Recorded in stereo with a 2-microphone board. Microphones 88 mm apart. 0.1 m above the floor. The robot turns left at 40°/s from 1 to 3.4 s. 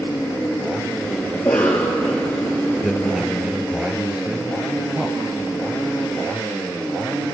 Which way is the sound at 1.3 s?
25° left.